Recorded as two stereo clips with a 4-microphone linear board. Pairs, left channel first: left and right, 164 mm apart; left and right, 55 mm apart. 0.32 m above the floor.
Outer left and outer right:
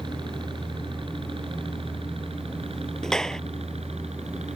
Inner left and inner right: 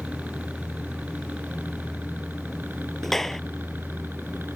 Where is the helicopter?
30° right (ahead or behind); by 4.5 s 40° right (ahead or behind).